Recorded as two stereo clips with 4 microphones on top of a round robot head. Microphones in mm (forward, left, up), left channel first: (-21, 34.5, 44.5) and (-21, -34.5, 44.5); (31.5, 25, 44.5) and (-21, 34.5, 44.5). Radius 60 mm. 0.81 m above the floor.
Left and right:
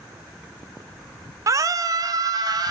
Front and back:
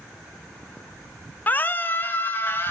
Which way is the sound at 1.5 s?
60° right.